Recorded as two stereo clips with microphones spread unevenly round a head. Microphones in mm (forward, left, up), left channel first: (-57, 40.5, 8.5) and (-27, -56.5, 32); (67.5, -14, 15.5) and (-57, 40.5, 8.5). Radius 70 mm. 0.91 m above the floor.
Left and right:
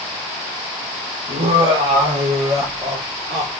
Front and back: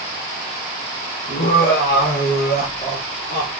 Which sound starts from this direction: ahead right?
Laughter, at 1.3 s.